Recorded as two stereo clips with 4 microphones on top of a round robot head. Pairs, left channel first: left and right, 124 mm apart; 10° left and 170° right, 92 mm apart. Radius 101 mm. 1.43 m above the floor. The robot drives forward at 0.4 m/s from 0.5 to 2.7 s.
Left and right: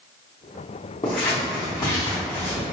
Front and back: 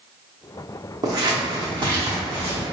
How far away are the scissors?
About 0.7 m.